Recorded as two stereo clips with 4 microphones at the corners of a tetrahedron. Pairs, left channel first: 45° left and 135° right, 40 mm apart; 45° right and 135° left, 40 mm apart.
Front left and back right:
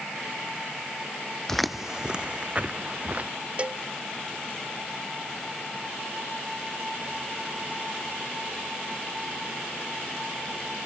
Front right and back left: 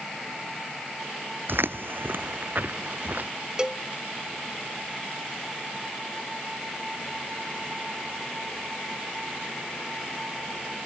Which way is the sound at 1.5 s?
125° left.